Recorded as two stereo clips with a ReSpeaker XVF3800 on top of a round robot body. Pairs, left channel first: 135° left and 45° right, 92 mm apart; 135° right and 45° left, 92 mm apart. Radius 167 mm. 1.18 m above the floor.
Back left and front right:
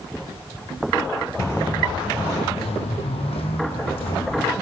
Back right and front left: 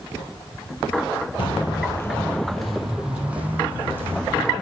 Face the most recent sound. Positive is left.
turn(degrees=110)